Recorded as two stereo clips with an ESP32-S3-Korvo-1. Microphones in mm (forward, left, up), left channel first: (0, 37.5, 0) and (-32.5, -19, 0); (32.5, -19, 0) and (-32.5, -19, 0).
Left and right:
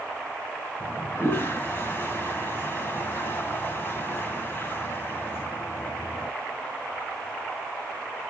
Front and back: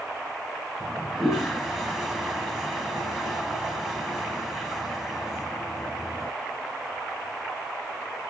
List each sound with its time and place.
0.8 s a toilet flushing: 95° left, 1.3 m